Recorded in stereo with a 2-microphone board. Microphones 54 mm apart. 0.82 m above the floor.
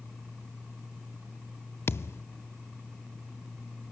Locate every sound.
1.9 s a thud: 55° left (ahead or behind), 0.6 m